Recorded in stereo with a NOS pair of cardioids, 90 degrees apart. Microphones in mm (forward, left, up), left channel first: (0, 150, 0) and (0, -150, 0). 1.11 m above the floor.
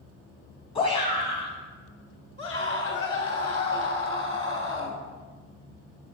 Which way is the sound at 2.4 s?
45° left.